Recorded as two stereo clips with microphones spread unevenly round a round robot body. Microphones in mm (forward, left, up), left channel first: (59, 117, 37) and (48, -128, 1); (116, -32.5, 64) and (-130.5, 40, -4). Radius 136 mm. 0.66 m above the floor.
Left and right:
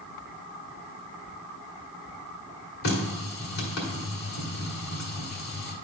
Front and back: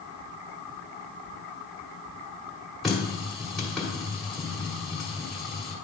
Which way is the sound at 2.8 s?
75° left.